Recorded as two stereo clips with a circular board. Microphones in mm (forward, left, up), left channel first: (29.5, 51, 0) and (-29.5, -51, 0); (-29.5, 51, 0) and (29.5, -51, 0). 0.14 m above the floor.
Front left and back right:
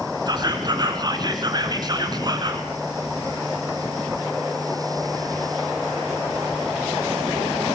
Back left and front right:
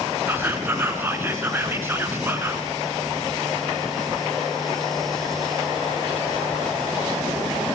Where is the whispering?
120° right, 1.9 m.